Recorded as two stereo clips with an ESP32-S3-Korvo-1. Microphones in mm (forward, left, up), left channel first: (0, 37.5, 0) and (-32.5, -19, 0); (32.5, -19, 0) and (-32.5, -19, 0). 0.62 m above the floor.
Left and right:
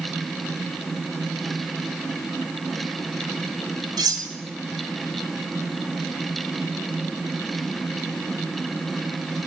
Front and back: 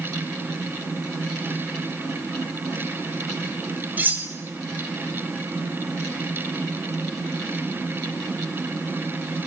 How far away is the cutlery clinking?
About 1.6 m.